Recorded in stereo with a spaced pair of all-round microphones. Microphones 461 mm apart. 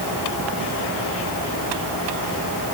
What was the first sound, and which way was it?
Only background noise.